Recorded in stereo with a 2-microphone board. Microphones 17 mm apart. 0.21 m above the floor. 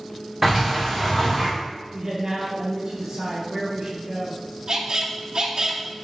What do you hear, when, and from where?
0.4 s a sliding door: 20° right (ahead or behind), 3.5 m
1.9 s a man speaking: 40° right (ahead or behind), 4 m
4.7 s a squeak: 50° right (ahead or behind), 1.7 m